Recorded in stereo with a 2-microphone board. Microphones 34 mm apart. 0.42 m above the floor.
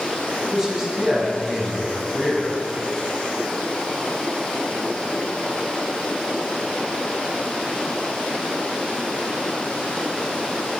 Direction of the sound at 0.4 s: 15° right (ahead or behind).